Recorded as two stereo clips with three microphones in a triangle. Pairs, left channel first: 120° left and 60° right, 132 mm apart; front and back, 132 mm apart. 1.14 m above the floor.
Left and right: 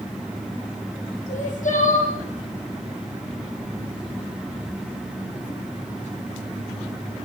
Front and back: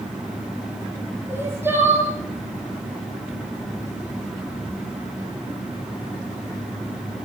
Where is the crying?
105° left, 9.5 m.